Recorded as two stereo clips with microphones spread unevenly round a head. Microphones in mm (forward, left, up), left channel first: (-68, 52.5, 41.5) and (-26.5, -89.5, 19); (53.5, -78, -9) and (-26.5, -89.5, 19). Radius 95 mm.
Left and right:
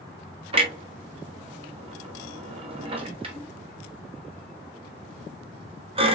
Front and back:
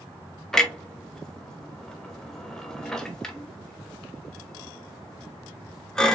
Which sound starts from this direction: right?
A clunk, at 0.5 s.